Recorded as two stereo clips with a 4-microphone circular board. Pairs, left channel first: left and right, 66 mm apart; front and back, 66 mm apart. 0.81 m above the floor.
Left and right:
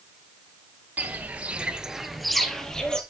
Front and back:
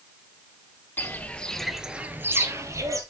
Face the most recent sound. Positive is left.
turn(degrees=165)